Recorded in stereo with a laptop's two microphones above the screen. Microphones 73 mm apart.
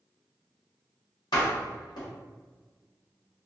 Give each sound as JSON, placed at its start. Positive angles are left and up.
{"t": 1.3, "sound": "a door slam", "side_deg": 65, "distance_m": 1.0}